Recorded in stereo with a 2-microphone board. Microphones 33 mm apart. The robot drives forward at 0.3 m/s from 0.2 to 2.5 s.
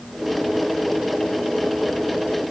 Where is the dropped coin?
No dropped coin in this recording.